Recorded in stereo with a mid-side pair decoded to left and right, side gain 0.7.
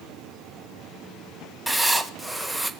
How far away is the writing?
About 0.7 m.